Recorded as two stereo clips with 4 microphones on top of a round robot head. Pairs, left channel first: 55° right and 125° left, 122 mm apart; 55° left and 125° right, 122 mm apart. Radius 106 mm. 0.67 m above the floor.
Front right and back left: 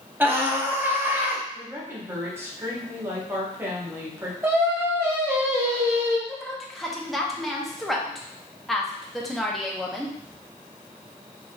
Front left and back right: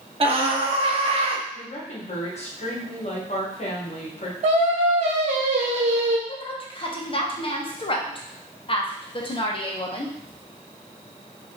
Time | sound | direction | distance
0.2 | a scream | 160° right | 1.4 m
1.5 | a woman speaking | 60° left | 1.5 m
4.4 | singing | 160° right | 1.2 m
6.3 | a woman speaking | 35° left | 1.1 m